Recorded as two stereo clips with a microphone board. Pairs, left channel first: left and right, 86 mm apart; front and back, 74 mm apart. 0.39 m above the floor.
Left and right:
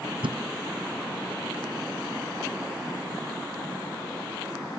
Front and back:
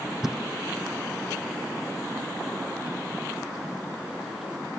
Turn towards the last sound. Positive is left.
turn(degrees=-95)